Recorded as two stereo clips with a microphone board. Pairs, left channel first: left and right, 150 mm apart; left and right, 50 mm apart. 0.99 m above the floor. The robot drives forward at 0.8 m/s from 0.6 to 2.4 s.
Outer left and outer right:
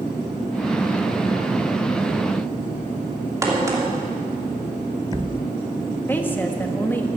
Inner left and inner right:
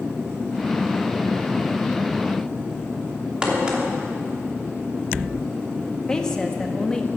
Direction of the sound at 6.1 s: 15° left (ahead or behind).